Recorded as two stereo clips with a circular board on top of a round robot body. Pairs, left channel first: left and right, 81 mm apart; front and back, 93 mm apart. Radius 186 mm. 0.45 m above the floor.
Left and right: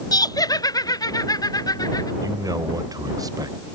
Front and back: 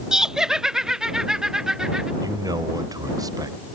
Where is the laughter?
100° left.